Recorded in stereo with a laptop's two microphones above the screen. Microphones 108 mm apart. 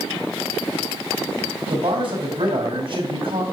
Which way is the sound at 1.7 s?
60° right (ahead or behind).